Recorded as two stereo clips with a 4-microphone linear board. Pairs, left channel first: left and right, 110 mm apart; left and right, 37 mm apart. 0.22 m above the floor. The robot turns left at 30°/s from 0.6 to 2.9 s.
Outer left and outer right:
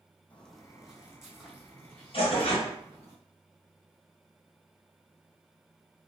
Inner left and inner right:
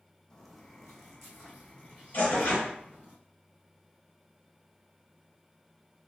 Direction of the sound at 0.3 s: 15° left (ahead or behind).